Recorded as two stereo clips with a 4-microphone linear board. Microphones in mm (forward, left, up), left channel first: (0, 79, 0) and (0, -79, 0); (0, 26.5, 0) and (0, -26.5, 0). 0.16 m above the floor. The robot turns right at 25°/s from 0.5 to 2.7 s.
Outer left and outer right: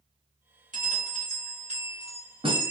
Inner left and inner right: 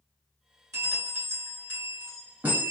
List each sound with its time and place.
0.7 s a bell: 85° right, 1.3 m; by 2.7 s 35° right, 1.3 m